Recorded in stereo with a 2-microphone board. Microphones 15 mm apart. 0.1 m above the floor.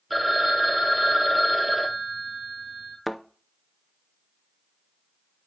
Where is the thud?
5° right (ahead or behind), 0.6 m.